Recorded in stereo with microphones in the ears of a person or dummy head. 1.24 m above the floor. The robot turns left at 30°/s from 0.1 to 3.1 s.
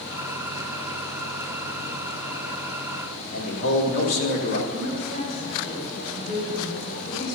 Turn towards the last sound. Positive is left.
turn(degrees=75)  # may be behind; listen again after turning